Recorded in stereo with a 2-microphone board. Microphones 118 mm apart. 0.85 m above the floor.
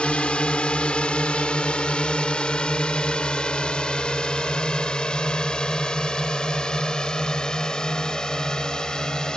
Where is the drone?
10° left (ahead or behind); by 9.4 s 5° left (ahead or behind).